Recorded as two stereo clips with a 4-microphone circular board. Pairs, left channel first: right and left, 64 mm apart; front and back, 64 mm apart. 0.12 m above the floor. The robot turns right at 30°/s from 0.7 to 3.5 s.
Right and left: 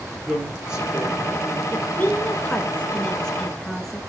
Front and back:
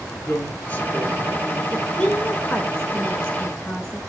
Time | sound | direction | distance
0.2 | a woman speaking | 30° left | 1.8 m
1.7 | a woman speaking | 70° right | 1.1 m